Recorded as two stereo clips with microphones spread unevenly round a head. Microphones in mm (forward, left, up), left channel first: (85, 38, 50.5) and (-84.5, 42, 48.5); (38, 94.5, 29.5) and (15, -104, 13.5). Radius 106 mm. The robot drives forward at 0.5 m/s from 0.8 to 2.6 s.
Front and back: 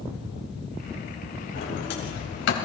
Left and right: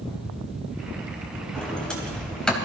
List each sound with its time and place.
1.6 s a sliding door: straight ahead, 3.5 m